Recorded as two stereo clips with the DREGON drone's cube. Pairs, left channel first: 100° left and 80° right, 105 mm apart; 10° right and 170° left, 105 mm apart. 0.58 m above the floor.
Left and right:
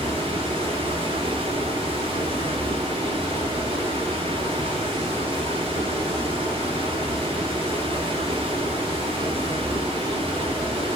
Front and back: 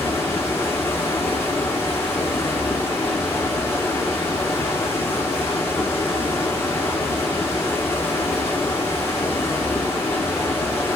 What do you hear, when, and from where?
0.0 s running water: 80° right, 1.0 m